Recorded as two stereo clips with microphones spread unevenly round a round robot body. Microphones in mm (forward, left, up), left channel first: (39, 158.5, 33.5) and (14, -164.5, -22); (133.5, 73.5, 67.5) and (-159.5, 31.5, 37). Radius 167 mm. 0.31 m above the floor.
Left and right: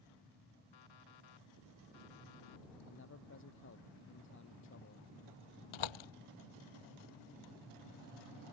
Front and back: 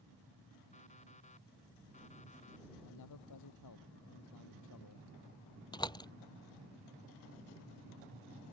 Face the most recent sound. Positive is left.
turn(degrees=85)